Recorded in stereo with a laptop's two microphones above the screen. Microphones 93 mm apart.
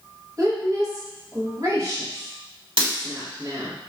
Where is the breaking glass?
70° right (ahead or behind), 1.3 m.